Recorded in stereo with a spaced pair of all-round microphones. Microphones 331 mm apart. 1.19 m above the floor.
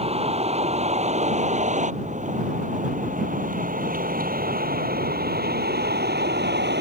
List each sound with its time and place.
0.0 s a vehicle: 20° right (ahead or behind); by 6.8 s 30° right (ahead or behind)